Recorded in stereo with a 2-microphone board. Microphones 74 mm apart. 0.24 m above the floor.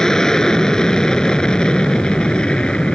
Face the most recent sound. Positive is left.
turn(degrees=15)  # may be behind; listen again after turning